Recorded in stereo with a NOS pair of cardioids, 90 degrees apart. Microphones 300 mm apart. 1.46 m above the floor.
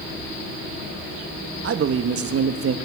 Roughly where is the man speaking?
Ahead right.